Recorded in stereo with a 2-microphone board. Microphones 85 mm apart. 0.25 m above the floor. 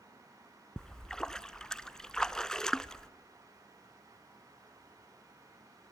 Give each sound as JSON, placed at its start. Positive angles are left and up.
{"t": 0.8, "sound": "a splash", "side_deg": 10, "distance_m": 0.5}